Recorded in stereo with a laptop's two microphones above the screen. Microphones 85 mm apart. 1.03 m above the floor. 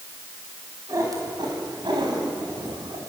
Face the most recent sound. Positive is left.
turn(degrees=-85)